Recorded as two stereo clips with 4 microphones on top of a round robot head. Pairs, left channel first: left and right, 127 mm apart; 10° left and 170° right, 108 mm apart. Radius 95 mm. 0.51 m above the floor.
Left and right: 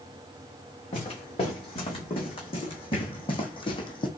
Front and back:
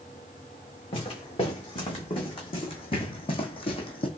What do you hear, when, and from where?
0.9 s footsteps: 45° left, 3 m; by 4.1 s 40° left, 1.2 m